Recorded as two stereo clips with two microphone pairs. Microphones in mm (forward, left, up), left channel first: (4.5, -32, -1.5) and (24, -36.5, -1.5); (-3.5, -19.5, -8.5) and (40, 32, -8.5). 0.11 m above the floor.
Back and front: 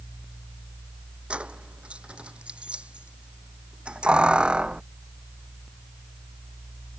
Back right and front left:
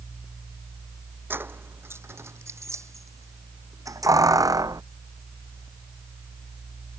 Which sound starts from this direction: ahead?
Keys jangling, at 1.3 s.